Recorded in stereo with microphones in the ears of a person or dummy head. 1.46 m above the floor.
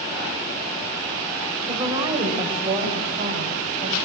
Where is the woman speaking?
25° right (ahead or behind), 6.5 m; by 4.0 s 40° right (ahead or behind), 8.5 m.